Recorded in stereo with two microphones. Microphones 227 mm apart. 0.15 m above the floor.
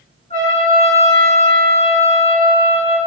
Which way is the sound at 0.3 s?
30° left (ahead or behind).